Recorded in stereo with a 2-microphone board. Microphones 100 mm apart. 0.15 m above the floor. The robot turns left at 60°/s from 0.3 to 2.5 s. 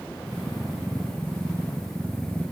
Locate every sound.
Only background noise.